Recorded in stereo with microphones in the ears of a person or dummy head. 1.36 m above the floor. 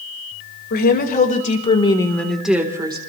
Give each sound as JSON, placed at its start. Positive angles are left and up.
{"t": 0.7, "sound": "a woman speaking", "side_deg": 55, "distance_m": 2.5}